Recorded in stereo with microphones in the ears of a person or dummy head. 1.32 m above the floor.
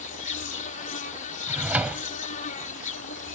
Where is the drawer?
15° right (ahead or behind).